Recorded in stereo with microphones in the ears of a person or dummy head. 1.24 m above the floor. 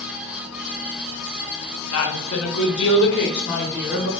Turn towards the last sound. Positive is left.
turn(degrees=40)  # may be behind; listen again after turning